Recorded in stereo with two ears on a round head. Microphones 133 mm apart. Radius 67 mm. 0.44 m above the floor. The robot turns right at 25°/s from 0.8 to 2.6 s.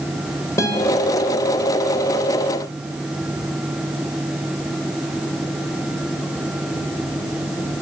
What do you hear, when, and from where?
0.6 s a guitar: 20° left (ahead or behind), 1.2 m